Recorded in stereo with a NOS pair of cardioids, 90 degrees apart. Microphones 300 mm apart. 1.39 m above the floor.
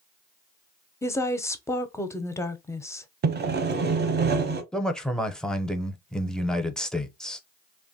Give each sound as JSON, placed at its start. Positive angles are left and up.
{"t": 1.0, "sound": "a woman speaking", "azimuth_deg": 10, "distance_m": 0.5}
{"t": 3.2, "sound": "sawing", "azimuth_deg": -35, "distance_m": 0.6}
{"t": 4.7, "sound": "a man speaking", "azimuth_deg": 0, "distance_m": 0.6}